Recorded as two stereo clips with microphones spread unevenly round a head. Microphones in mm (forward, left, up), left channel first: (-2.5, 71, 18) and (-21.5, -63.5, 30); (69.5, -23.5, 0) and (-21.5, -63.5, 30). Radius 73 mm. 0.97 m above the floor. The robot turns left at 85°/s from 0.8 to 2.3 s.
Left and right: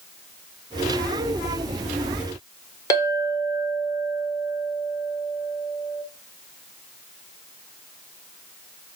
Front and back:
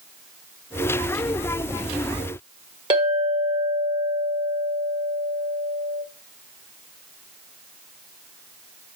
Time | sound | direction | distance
2.9 | a clink | 150° left | 1.7 m